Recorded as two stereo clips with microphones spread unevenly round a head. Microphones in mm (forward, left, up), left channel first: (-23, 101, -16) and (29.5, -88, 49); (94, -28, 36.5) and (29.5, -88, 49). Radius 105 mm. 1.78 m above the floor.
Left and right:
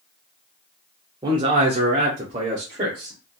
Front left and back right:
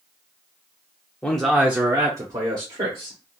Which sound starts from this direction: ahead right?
A man speaking, at 1.2 s.